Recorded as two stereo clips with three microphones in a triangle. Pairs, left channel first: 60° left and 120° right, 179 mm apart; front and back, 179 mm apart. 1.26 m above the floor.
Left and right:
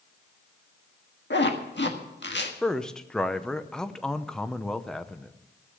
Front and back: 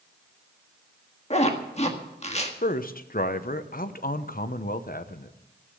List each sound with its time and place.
1.3 s a zipper: 55° left, 1.5 m
2.6 s a man speaking: 25° right, 0.8 m